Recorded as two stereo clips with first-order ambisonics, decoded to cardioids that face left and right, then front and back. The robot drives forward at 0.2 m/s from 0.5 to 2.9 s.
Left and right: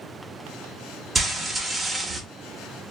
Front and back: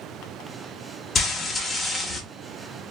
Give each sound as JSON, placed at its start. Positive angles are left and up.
{"t": 1.1, "sound": "frying", "azimuth_deg": -25, "distance_m": 0.5}